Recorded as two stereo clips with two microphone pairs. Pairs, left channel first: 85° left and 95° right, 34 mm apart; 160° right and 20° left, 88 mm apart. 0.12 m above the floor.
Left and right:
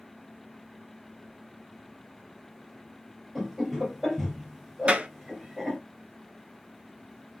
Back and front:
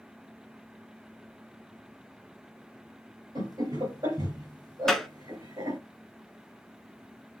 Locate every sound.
3.4 s laughter: straight ahead, 3 m
4.9 s a clap: 70° right, 1.1 m